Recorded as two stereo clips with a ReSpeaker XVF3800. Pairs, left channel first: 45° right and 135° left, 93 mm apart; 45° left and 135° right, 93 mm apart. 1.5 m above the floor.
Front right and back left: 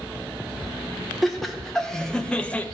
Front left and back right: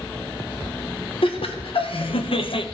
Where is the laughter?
45° left, 1.6 m; by 2.6 s 30° left, 0.8 m.